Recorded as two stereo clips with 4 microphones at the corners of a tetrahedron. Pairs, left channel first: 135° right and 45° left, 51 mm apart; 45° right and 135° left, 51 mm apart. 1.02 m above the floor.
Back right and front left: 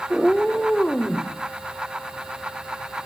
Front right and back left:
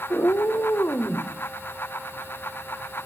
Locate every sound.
0.1 s a cat meowing: 40° right, 1.5 m; by 1.3 s 65° right, 2.5 m